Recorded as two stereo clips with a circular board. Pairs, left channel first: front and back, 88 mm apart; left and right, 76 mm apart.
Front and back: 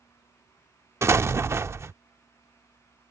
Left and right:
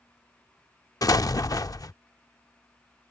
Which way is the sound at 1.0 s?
120° left.